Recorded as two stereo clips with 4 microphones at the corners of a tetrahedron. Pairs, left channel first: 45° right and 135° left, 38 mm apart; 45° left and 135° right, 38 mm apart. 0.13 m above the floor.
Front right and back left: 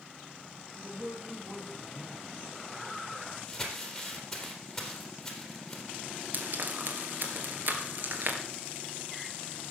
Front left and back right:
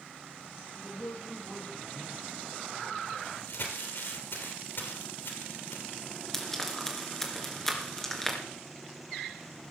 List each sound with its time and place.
0.7 s a man speaking: 65° left, 4.5 m
3.5 s crumpling: 35° left, 3 m
6.3 s frying: 120° left, 2.5 m